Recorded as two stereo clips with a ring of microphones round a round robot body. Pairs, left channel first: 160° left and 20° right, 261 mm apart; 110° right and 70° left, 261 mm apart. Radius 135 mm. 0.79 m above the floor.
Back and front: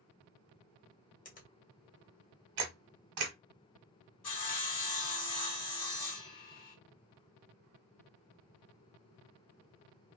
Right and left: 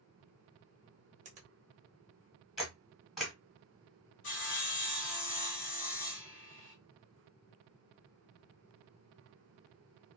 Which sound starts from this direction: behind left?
A finger snap, at 1.2 s.